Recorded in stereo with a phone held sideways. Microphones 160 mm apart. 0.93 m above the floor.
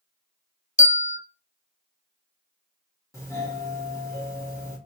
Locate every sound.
0.8 s a bell: 55° left (ahead or behind), 0.5 m
3.1 s a doorbell: 20° left (ahead or behind), 1.4 m